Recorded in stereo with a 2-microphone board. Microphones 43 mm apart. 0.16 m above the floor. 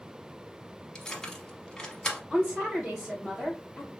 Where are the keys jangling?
15° left (ahead or behind), 0.7 m.